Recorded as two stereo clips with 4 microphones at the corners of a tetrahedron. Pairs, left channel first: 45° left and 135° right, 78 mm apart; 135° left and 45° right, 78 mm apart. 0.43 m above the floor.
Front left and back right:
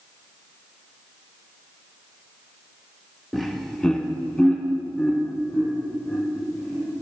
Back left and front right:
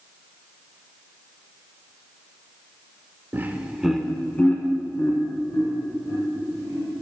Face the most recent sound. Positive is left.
turn(degrees=115)